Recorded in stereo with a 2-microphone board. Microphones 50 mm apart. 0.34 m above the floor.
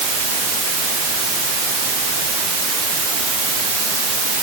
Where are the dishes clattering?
I don't hear dishes clattering.